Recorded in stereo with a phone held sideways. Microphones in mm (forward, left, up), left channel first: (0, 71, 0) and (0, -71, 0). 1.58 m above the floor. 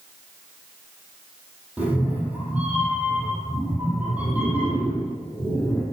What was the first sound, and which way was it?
A cat meowing, 10° right (ahead or behind).